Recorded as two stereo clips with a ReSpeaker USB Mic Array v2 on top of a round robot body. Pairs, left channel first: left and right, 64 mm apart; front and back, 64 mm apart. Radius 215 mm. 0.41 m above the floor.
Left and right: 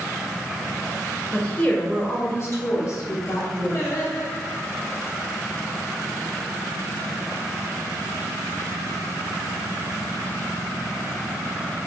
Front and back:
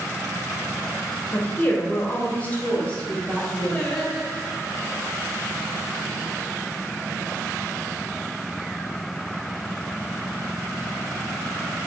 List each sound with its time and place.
1.3 s a woman speaking: 25° left, 1.3 m; by 4.0 s 75° left, 2 m
3.7 s singing: 70° left, 1.5 m